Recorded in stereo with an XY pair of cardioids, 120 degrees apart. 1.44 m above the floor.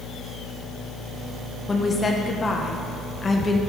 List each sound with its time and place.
1.7 s a woman speaking: 25° left, 1.4 m